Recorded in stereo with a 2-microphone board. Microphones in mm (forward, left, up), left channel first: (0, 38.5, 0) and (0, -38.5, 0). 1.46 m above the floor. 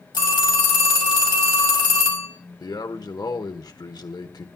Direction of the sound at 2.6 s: 60° left (ahead or behind).